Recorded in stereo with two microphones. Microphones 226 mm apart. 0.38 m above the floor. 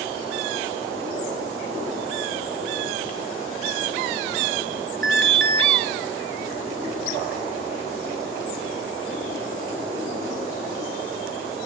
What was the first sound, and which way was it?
An alarm, 55° right (ahead or behind).